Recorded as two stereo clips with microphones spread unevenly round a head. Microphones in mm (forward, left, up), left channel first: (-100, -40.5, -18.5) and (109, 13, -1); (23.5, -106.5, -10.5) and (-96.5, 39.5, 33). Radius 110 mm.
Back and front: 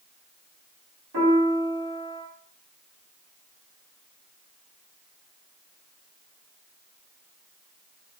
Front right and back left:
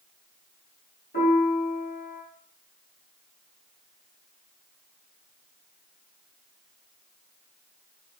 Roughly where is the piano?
Ahead.